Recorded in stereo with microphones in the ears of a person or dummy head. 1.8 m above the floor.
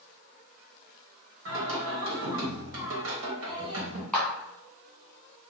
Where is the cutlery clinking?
I don't hear cutlery clinking.